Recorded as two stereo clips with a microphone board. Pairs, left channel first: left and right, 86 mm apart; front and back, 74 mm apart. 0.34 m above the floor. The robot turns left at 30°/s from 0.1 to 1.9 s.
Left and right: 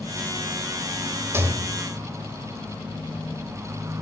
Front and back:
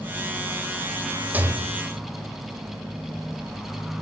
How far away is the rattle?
About 1.8 m.